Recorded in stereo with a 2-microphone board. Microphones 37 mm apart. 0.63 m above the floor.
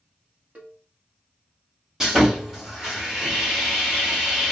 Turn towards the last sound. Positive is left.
turn(degrees=-10)  # may be behind; listen again after turning